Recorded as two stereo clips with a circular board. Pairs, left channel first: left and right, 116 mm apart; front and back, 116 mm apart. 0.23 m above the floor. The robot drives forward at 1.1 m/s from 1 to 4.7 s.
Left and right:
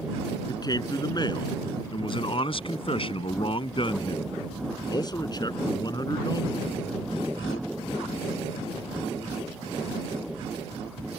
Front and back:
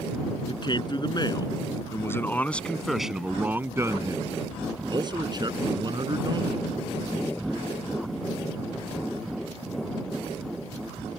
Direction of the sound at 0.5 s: 40° left.